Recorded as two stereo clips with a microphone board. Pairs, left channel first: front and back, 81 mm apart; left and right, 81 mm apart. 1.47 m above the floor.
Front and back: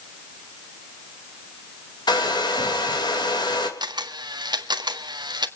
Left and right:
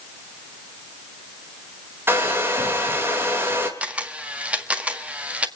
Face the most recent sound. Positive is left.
turn(degrees=-165)